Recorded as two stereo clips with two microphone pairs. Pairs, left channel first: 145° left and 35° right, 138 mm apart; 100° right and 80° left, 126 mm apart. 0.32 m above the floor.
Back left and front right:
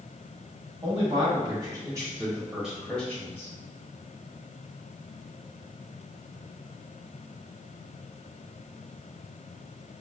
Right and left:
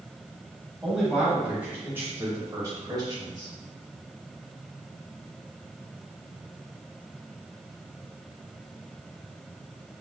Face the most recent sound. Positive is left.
turn(degrees=90)